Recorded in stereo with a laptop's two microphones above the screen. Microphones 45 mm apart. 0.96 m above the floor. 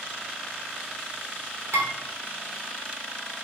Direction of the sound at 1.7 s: 75° right (ahead or behind).